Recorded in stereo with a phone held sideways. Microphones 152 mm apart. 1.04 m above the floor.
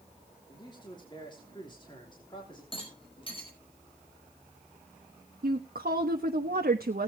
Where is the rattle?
35° left (ahead or behind), 4.5 m.